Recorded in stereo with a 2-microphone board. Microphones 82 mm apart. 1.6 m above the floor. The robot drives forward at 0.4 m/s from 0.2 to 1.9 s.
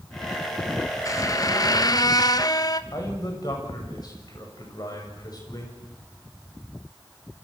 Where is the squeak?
40° left (ahead or behind), 1.2 m; by 2.8 s 50° left (ahead or behind), 1.0 m.